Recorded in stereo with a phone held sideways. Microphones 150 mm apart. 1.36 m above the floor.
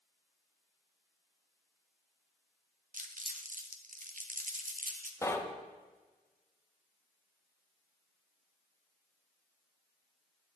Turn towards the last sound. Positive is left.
turn(degrees=20)  # may be behind; listen again after turning